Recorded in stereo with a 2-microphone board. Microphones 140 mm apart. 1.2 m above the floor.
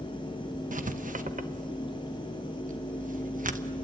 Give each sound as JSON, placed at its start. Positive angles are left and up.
{"t": 0.7, "sound": "writing", "side_deg": -70, "distance_m": 1.1}